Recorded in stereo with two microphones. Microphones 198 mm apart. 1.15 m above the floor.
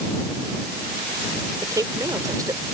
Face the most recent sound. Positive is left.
turn(degrees=-20)  # may be behind; listen again after turning